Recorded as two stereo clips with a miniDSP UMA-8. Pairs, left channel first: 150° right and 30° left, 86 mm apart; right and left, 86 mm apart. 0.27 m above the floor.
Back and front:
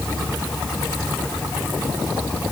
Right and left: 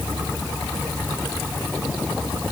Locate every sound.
Only background noise.